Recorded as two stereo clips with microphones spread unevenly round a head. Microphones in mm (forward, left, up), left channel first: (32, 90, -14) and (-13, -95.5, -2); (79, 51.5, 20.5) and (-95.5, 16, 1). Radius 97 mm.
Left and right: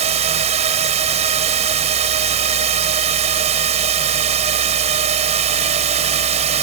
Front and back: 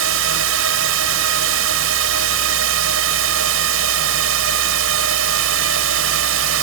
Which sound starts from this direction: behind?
A drone, at 0.0 s.